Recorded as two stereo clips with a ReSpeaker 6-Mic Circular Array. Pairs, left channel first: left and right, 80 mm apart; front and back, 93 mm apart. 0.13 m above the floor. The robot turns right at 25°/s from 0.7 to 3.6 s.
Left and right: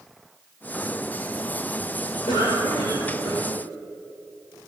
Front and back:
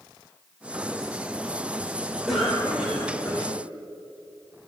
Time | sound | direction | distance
2.3 | a cough | 90° left | 6.5 m